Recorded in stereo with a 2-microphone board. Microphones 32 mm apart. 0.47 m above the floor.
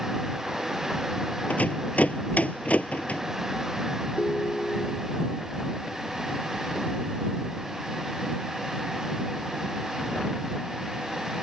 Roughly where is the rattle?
Left.